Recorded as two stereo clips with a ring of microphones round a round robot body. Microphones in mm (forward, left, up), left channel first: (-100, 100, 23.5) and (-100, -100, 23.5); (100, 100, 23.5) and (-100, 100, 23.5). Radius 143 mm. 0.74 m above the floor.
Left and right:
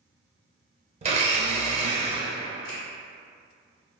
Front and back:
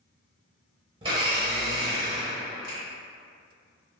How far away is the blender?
About 0.5 m.